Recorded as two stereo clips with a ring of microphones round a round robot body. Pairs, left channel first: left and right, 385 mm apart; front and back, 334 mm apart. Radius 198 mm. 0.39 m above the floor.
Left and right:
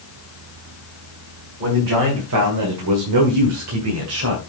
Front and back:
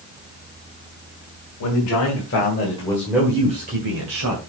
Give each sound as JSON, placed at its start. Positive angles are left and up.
{"t": 1.6, "sound": "a man speaking", "azimuth_deg": -35, "distance_m": 2.5}